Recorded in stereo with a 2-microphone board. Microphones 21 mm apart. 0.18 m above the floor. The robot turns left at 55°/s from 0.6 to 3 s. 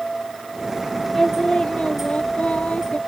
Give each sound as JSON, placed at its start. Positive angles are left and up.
{"t": 1.1, "sound": "singing", "azimuth_deg": 155}